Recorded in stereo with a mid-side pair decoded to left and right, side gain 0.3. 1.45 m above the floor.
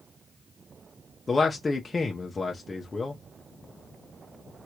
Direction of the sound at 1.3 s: 45° left.